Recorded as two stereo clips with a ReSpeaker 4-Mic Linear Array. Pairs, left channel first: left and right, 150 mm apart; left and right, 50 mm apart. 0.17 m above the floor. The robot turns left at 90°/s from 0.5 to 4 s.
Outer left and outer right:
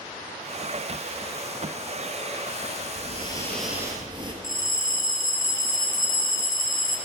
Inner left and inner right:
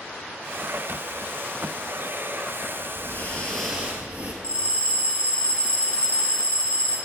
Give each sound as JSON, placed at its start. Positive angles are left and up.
{"t": 3.0, "sound": "breathing", "azimuth_deg": 60, "distance_m": 1.2}
{"t": 4.4, "sound": "a bell", "side_deg": 25, "distance_m": 1.5}